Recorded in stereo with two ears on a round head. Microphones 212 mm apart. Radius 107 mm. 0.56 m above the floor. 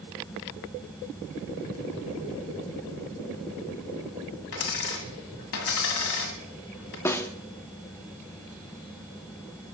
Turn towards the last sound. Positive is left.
turn(degrees=10)  # may be behind; listen again after turning